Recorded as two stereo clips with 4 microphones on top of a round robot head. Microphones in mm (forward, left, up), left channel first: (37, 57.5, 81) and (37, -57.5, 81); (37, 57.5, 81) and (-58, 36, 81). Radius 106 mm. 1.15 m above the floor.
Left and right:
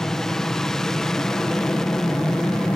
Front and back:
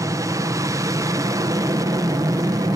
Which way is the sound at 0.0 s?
175° left.